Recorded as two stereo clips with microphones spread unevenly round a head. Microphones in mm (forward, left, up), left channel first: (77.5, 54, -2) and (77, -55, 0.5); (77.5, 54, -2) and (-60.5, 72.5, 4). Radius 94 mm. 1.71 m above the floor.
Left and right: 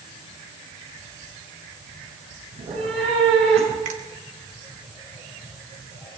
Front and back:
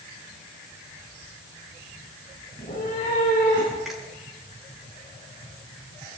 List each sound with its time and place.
2.5 s a cat meowing: 70° right, 9 m; by 3.8 s 80° right, 9.5 m
3.9 s a finger snap: 100° right, 2 m